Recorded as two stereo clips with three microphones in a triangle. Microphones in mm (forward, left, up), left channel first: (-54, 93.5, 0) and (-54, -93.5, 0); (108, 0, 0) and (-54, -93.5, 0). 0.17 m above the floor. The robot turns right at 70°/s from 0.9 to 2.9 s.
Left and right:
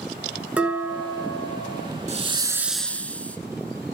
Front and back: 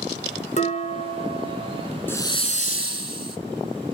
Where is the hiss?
50° right, 0.7 m; by 3.4 s 10° left, 0.7 m.